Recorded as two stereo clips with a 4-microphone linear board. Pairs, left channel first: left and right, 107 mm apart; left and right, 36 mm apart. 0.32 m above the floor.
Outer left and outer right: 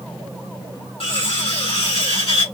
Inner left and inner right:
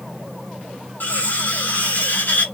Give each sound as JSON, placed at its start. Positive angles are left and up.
{"t": 1.0, "sound": "cutlery clinking", "side_deg": 65, "distance_m": 2.0}